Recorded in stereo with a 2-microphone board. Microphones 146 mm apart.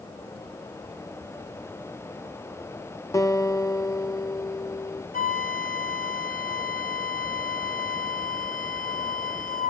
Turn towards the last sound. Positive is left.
turn(degrees=70)  # may be behind; listen again after turning